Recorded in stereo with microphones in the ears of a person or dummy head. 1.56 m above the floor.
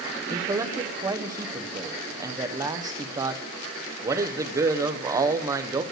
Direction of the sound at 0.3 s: 25° right (ahead or behind).